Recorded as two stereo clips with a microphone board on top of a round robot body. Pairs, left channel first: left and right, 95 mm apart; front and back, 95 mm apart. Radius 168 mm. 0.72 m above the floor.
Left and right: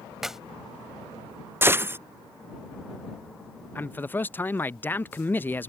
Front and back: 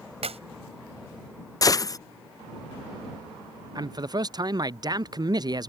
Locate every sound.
0.2 s a clap: 175° right
1.6 s a gunshot: 30° right
3.8 s a man speaking: 155° left